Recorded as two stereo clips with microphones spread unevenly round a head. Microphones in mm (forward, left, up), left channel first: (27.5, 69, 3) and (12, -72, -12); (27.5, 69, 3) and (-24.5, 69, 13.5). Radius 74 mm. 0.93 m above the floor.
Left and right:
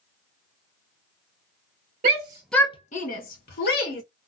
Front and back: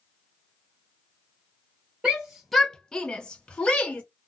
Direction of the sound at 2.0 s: 95° right.